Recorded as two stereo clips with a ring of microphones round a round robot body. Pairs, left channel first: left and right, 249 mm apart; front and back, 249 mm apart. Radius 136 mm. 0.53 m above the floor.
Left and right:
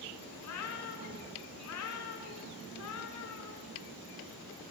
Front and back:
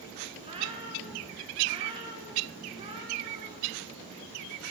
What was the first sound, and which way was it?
A cat meowing, 110° left.